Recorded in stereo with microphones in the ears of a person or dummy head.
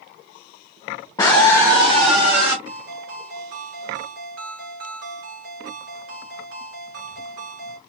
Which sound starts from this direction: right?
A ringtone, at 2.6 s.